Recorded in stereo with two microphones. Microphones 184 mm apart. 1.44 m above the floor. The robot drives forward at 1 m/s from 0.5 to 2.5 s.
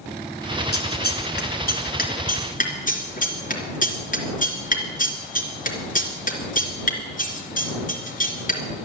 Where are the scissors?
65° left (ahead or behind), 2.5 m; by 8.6 s 50° left (ahead or behind), 3 m.